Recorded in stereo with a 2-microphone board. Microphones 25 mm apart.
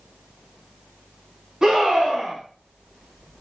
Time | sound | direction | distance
1.6 | a scream | 25° right (ahead or behind) | 1.5 m